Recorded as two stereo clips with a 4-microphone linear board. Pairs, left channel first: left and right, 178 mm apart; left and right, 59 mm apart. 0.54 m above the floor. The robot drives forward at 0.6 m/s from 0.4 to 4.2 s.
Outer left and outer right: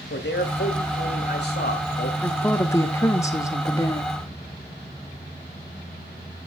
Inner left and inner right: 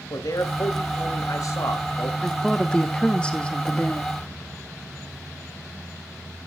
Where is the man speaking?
70° left (ahead or behind), 2 m; by 2.1 s 55° left (ahead or behind), 2.5 m.